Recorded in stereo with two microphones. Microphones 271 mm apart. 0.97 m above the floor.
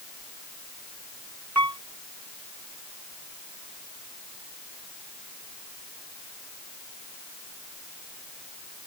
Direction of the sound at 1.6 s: 85° right.